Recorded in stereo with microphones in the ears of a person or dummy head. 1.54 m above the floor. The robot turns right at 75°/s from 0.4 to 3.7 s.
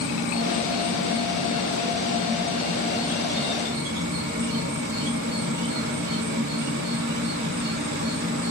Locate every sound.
0.0 s an insect: 60° left, 1.7 m; by 8.5 s 50° right, 1.7 m